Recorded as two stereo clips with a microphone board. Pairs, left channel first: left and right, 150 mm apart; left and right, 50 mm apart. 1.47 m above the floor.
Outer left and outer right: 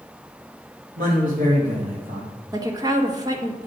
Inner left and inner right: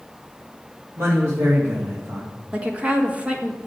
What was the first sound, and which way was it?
A man speaking, 65° right (ahead or behind).